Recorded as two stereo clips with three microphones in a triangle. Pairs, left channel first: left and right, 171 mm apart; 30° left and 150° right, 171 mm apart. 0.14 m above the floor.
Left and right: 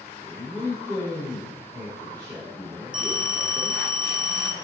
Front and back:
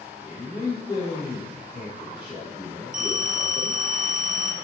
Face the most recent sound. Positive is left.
turn(degrees=-175)